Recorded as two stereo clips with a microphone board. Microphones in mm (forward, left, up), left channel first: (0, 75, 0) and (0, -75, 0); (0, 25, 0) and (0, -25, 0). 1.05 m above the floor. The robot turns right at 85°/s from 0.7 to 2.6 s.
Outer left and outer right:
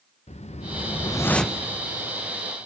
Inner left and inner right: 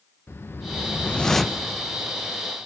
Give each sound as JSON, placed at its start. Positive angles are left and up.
{"t": 0.3, "sound": "a whoosh", "azimuth_deg": 115, "distance_m": 0.8}